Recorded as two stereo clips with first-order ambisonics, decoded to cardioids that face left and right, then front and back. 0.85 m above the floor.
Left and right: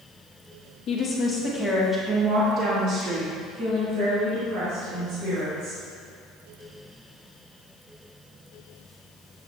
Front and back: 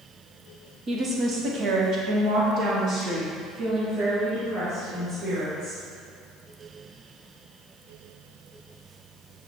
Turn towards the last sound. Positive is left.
turn(degrees=-115)